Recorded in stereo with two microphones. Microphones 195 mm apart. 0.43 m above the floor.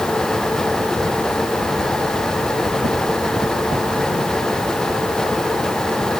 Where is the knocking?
I don't hear knocking.